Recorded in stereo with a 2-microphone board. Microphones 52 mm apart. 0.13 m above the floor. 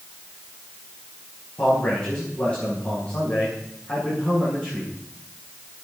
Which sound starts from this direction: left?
A man speaking, at 1.6 s.